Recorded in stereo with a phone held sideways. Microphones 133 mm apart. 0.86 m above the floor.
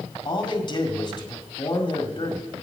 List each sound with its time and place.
0.2 s a man speaking: 35° left (ahead or behind), 1.8 m